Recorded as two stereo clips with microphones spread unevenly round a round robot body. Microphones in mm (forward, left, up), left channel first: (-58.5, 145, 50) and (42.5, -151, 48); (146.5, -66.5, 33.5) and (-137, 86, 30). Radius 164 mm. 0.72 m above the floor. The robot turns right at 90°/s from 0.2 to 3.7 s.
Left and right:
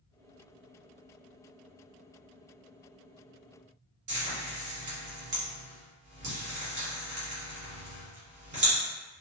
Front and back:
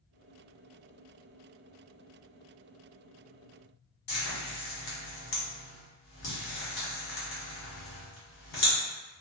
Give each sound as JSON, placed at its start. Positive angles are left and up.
{"t": 4.1, "sound": "frying", "azimuth_deg": -5, "distance_m": 1.4}